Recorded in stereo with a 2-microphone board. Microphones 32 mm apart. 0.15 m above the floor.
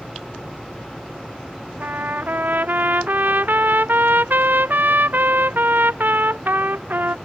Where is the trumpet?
80° right.